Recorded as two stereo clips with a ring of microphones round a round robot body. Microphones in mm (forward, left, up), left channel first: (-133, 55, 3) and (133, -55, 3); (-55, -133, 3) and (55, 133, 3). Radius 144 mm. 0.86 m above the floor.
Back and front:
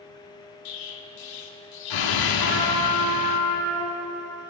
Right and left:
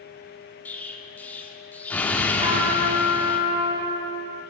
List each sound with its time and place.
0.7 s an explosion: 165° left, 1.7 m
2.4 s a trumpet: 140° left, 7.5 m